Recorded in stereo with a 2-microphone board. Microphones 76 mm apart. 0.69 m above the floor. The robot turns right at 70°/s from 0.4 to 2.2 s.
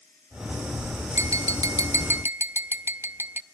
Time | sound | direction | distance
1.1 | tapping | 120° right | 0.7 m